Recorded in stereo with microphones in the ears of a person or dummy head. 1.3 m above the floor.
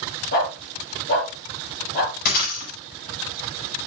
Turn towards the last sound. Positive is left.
turn(degrees=50)  # may be behind; listen again after turning